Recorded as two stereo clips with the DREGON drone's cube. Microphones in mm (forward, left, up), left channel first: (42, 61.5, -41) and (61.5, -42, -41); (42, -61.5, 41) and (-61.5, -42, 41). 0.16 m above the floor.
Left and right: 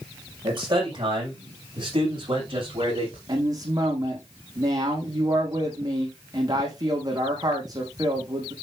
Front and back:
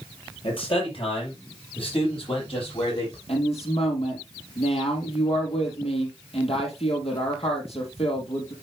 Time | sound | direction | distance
0.4 | a man speaking | 40° right | 6 m
3.3 | a woman speaking | 30° right | 5.5 m